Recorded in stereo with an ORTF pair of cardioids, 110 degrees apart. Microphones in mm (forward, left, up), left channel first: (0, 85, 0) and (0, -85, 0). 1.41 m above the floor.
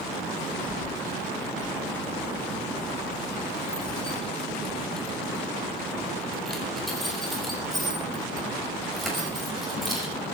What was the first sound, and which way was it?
Keys jangling, 25° left.